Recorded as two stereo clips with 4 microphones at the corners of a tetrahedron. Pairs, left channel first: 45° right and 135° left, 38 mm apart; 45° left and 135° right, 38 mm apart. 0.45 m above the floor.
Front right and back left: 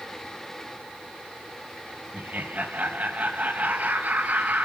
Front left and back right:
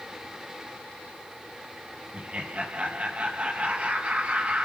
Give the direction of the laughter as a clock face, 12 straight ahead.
6 o'clock.